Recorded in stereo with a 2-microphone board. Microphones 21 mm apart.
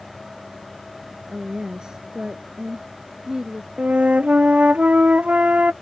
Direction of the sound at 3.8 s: 90° right.